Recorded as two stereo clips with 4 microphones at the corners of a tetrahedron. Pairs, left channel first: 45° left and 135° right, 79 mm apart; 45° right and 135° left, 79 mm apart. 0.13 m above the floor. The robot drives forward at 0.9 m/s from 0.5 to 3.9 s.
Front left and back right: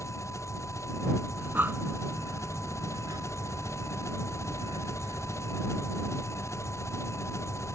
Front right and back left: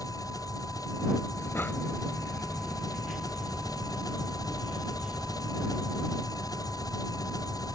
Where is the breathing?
75° right; by 6.3 s 155° right.